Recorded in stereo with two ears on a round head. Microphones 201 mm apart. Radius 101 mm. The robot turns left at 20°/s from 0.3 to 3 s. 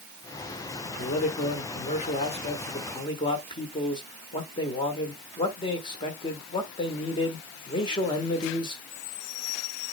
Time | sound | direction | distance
0.8 | a man speaking | 80° left | 1.3 m